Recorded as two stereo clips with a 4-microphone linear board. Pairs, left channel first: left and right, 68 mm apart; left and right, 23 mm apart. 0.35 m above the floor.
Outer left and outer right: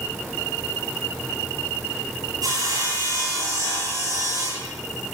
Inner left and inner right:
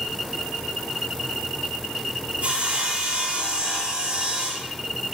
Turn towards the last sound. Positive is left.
turn(degrees=-80)